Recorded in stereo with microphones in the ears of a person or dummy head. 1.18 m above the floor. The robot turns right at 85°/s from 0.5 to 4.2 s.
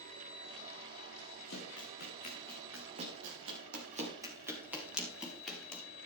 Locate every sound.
1.5 s running footsteps: 70° left (ahead or behind), 6.5 m; by 5.8 s 10° left (ahead or behind), 5.5 m